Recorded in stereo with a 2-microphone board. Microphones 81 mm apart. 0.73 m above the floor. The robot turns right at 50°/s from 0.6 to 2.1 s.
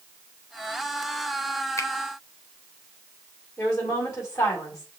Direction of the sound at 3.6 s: 35° left (ahead or behind).